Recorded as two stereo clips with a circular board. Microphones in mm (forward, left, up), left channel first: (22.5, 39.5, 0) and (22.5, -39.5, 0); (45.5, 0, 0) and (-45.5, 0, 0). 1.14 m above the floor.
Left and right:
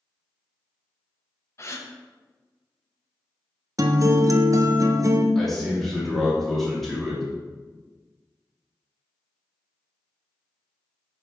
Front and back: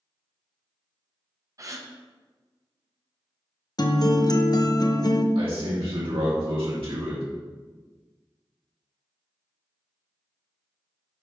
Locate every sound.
1.6 s a gasp: 135° left, 0.7 m
3.8 s a guitar: 45° right, 0.6 m
5.3 s a man speaking: 175° left, 2.5 m